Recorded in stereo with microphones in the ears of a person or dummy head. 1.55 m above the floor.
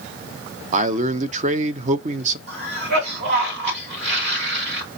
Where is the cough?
75° right (ahead or behind), 2 m.